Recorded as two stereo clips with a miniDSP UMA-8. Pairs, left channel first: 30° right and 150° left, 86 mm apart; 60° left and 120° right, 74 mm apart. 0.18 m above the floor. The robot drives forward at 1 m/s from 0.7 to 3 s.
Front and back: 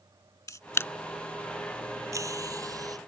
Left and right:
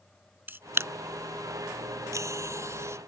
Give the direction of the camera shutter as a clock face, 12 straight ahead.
2 o'clock.